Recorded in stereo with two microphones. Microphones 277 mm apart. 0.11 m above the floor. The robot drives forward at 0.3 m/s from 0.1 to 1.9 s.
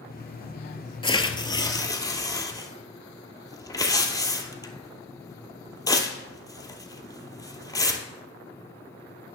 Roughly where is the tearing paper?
Centre.